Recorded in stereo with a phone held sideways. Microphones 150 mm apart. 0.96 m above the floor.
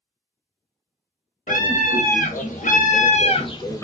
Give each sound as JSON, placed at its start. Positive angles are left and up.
{"t": 1.5, "sound": "a scream", "side_deg": 65, "distance_m": 1.3}